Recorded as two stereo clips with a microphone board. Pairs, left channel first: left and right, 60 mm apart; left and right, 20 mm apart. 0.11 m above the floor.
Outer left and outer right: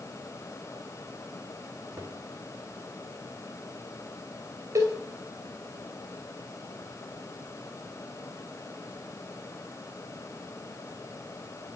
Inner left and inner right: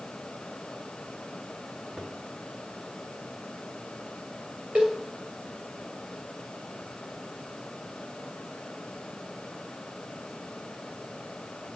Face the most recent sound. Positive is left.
turn(degrees=-70)  # may be behind; listen again after turning